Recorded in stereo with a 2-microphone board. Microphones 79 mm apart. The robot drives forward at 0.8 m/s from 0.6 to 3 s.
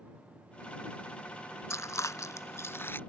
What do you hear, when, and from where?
1.7 s chewing: 40° left (ahead or behind); by 3.0 s 30° left (ahead or behind)